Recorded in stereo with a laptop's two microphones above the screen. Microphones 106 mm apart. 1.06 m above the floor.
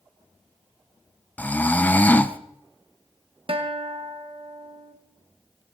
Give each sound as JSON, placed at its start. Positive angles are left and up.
{"t": 1.4, "sound": "snoring", "side_deg": 15, "distance_m": 0.7}
{"t": 3.5, "sound": "a guitar", "side_deg": -60, "distance_m": 1.1}